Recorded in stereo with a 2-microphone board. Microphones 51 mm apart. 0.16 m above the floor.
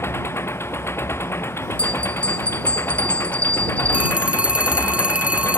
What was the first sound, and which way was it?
An engine running, 55° left (ahead or behind).